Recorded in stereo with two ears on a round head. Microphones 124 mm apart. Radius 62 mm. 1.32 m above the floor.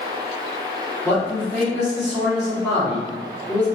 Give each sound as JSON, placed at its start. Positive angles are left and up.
{"t": 1.1, "sound": "a man speaking", "side_deg": 15, "distance_m": 2.0}